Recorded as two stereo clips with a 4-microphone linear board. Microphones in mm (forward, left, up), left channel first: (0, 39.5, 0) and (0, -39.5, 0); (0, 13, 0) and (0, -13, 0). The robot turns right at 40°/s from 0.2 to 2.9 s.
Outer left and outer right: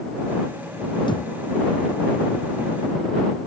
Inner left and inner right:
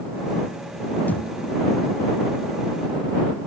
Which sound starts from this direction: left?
A thud, at 1.1 s.